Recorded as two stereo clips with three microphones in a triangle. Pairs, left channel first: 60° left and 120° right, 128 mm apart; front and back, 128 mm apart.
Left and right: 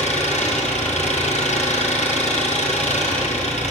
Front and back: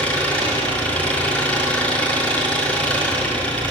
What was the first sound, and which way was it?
An engine running, 80° left.